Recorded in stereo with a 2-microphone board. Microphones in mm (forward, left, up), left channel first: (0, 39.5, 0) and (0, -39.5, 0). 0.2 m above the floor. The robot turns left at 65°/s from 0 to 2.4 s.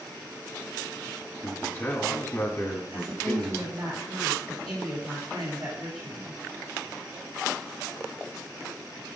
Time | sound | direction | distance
1.4 | a man speaking | 90° left | 1.3 m
2.9 | a woman speaking | 70° right (ahead or behind) | 3.5 m